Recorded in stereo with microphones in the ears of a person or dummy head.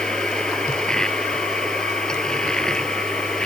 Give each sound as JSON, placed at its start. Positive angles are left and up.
{"t": 0.0, "sound": "a machine running", "side_deg": 5}